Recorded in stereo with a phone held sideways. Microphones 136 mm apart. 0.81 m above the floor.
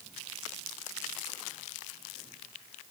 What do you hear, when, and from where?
Only background noise.